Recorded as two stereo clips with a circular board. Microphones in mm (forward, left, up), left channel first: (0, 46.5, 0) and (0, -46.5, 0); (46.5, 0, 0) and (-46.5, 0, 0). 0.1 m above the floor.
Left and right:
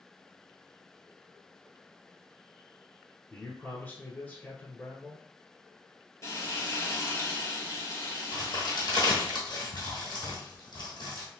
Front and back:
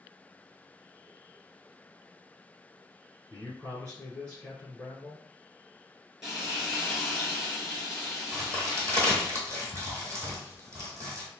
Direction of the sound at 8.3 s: 125° left.